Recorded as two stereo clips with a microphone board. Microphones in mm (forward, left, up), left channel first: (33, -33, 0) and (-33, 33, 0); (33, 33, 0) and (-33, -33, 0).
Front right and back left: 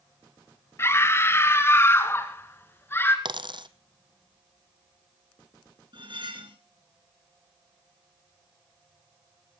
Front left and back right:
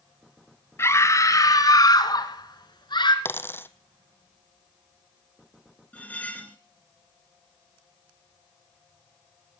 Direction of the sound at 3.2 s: 110° left.